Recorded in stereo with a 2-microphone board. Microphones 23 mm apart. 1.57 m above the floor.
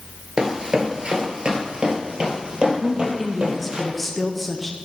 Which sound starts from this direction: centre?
A woman speaking, at 2.8 s.